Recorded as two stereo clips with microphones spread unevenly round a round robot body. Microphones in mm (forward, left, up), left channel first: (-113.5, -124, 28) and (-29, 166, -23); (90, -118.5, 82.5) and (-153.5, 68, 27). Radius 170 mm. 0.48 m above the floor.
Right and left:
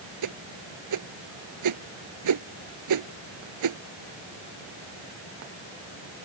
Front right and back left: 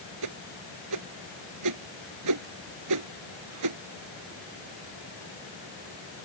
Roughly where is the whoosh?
Left.